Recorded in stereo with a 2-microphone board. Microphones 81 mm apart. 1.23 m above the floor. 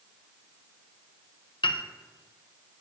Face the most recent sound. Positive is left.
turn(degrees=80)